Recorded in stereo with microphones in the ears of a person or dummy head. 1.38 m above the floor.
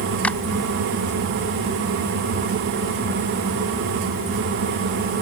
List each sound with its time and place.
0.2 s a clap: 5° left (ahead or behind)